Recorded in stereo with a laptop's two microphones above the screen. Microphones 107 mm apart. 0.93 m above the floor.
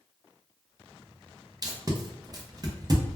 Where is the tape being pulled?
35° right (ahead or behind), 0.7 m.